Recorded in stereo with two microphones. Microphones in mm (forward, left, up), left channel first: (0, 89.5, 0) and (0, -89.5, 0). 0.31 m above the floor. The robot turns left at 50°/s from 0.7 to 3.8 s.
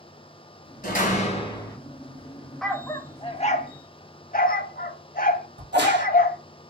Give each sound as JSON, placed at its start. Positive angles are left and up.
{"t": 0.8, "sound": "a door slam", "azimuth_deg": 65, "distance_m": 1.7}
{"t": 2.6, "sound": "a dog barking", "side_deg": 0, "distance_m": 0.5}
{"t": 5.6, "sound": "a crack", "side_deg": -75, "distance_m": 1.9}